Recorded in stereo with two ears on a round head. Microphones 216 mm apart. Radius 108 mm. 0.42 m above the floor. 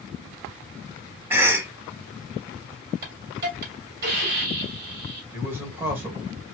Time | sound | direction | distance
1.3 | a cough | 10° right (ahead or behind) | 0.8 m
3.0 | a hiss | 45° right (ahead or behind) | 1.7 m
5.3 | a man speaking | 10° right (ahead or behind) | 1.6 m